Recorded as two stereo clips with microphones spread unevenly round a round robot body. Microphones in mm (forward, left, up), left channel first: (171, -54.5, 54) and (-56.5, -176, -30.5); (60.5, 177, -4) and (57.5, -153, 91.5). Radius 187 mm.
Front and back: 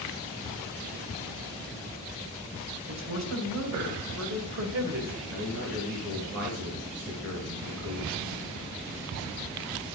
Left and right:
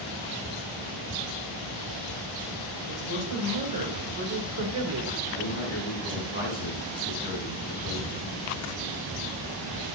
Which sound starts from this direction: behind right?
A woman speaking, at 2.9 s.